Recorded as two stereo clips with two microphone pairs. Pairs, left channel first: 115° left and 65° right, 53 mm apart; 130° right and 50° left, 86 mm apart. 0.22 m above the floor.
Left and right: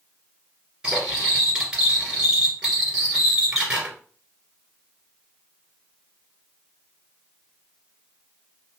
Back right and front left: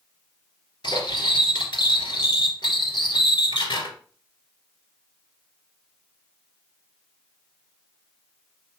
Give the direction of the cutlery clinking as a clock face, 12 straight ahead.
4 o'clock.